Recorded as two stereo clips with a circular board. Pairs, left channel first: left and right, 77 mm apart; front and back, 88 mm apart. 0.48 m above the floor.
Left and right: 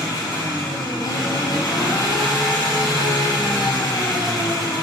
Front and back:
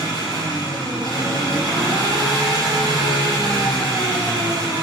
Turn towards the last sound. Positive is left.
turn(degrees=135)